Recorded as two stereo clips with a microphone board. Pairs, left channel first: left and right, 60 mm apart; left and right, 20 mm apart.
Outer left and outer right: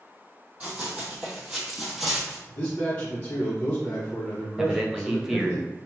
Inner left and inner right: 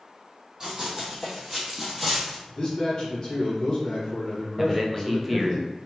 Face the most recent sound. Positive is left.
turn(degrees=-10)  # may be behind; listen again after turning